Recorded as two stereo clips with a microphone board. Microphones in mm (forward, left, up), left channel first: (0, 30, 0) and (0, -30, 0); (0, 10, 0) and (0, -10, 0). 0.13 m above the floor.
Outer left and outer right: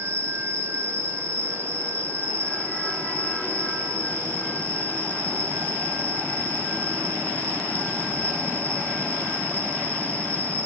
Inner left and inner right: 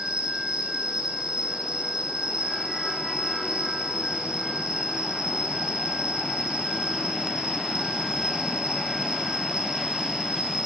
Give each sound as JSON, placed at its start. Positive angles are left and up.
{"t": 0.0, "sound": "an insect", "side_deg": -50, "distance_m": 3.5}